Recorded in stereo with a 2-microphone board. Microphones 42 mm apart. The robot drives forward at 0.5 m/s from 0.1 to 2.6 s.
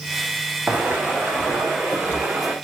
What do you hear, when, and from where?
0.7 s footsteps: 35° right (ahead or behind), 3 m; by 2.5 s 40° right (ahead or behind), 4 m